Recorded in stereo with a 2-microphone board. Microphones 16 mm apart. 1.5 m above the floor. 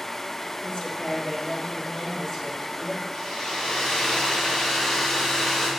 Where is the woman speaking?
65° left (ahead or behind), 1.8 m; by 3.0 s 50° left (ahead or behind), 5 m.